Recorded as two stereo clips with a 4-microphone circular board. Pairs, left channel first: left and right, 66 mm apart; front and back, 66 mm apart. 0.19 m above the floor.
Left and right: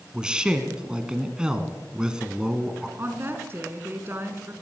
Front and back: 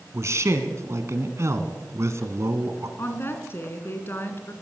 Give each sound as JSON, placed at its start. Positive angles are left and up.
{"t": 0.1, "sound": "a man speaking", "azimuth_deg": -165, "distance_m": 2.0}
{"t": 3.0, "sound": "a woman speaking", "azimuth_deg": -40, "distance_m": 2.5}